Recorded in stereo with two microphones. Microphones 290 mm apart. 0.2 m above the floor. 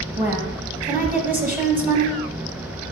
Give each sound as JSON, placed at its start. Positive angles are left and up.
{"t": 0.2, "sound": "a woman speaking", "side_deg": -5, "distance_m": 1.1}